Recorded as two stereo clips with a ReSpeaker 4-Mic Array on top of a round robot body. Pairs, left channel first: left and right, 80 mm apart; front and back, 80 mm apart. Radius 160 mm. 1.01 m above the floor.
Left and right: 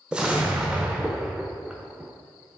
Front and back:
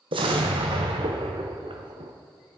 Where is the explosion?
170° right, 0.9 m.